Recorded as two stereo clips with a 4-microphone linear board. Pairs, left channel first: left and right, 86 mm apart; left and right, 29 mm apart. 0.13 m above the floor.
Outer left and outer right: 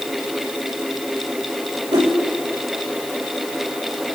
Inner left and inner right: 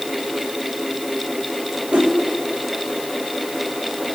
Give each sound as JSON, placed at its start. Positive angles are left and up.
{"t": 1.9, "sound": "a whoosh", "side_deg": -50, "distance_m": 2.5}